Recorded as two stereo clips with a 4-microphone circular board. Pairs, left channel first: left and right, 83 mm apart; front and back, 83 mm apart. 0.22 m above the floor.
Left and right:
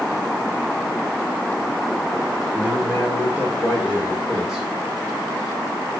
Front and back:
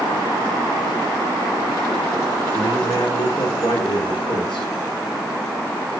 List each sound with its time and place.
2.5 s a man speaking: 20° right, 7.5 m; by 4.7 s straight ahead, 6.5 m